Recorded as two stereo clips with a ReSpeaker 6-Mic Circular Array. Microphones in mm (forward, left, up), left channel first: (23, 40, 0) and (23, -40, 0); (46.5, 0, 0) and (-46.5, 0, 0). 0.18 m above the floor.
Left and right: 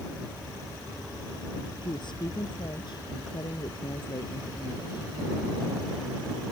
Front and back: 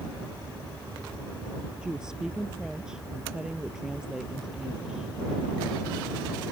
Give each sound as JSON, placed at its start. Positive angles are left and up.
{"t": 1.8, "sound": "a woman speaking", "azimuth_deg": 100}